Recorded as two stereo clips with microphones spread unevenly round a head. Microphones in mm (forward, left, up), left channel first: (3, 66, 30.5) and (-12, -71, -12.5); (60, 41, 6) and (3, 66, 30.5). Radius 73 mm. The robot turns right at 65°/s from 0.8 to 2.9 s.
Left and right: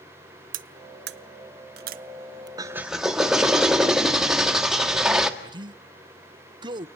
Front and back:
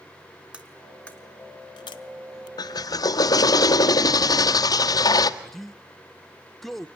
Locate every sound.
0.5 s cutlery clinking: 135° right, 0.7 m; by 2.5 s 25° right, 0.7 m
2.6 s a drill: 30° right, 1.5 m; by 5.3 s 10° right, 1.5 m
5.4 s a man speaking: 90° right, 0.7 m